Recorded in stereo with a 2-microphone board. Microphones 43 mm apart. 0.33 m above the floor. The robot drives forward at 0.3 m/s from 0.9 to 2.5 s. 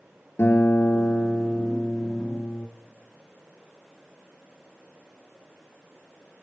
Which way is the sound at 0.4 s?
65° left (ahead or behind).